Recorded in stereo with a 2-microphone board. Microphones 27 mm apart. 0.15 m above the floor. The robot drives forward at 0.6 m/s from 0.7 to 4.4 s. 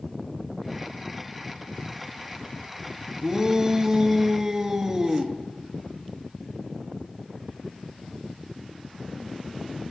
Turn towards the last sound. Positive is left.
turn(degrees=-15)  # may be behind; listen again after turning